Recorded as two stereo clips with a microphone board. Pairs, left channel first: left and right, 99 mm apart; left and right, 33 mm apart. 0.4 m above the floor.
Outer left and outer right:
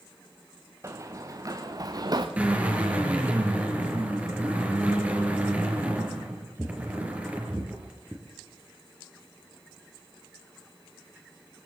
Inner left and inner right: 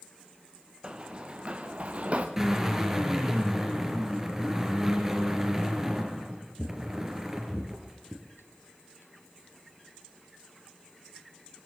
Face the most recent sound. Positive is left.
turn(degrees=-15)  # may be behind; listen again after turning